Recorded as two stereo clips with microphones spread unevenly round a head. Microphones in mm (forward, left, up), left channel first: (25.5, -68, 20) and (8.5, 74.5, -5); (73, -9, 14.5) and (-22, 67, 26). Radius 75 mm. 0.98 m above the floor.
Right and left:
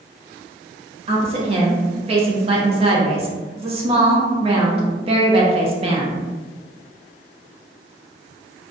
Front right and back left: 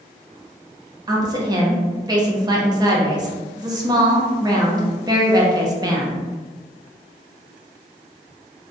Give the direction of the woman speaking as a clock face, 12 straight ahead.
9 o'clock.